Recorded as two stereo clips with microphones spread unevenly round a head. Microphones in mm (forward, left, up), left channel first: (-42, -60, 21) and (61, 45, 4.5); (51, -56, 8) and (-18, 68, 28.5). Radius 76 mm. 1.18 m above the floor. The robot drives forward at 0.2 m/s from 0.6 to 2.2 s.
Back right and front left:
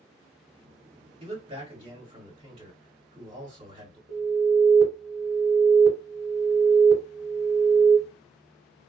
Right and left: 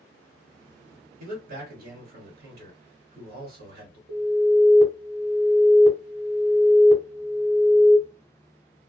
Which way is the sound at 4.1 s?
55° left.